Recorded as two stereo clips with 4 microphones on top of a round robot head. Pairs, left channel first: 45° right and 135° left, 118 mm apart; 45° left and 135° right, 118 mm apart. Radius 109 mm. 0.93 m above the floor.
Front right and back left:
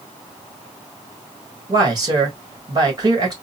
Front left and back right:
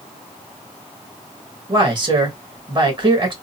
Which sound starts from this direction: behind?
A man speaking, at 1.7 s.